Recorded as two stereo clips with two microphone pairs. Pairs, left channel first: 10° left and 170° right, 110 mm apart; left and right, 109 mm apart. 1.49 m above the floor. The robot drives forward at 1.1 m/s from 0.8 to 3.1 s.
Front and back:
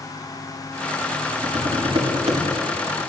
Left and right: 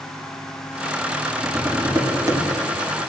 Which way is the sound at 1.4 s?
145° right.